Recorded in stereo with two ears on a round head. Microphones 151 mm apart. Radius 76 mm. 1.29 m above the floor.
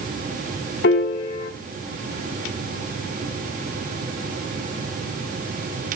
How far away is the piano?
About 0.9 m.